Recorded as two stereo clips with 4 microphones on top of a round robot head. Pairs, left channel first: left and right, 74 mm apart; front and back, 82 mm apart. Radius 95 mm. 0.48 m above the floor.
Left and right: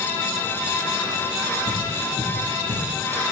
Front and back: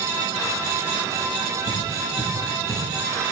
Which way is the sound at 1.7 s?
65° right.